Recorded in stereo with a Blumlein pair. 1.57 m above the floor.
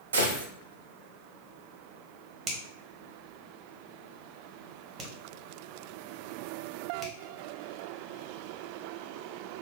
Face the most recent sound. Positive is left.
turn(degrees=-25)